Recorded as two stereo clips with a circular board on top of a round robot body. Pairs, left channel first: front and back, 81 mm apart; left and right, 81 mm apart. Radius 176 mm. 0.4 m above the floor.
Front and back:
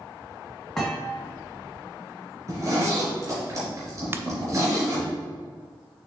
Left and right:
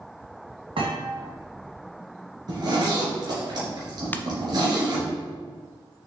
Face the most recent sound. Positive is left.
turn(degrees=145)